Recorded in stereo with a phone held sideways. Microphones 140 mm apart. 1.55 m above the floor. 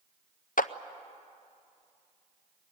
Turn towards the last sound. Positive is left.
turn(degrees=75)  # may be behind; listen again after turning